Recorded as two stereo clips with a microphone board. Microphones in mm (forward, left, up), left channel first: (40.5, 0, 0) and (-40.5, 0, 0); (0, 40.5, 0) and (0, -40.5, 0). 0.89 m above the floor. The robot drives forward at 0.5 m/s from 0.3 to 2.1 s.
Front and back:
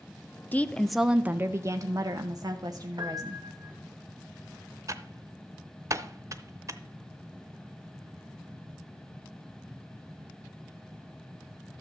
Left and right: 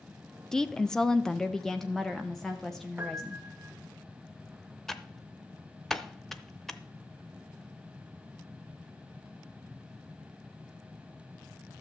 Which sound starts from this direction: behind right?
A piano, at 3.0 s.